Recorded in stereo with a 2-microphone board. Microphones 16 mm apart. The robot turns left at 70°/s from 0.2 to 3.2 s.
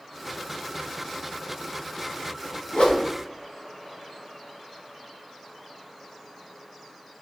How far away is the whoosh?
About 1.4 m.